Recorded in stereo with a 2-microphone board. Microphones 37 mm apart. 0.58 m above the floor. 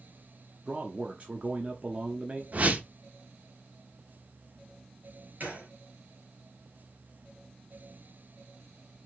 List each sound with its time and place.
0.7 s a man speaking: 40° right (ahead or behind), 0.7 m
2.5 s a whoosh: 40° right (ahead or behind), 0.7 m
5.4 s a gunshot: 55° right (ahead or behind), 3 m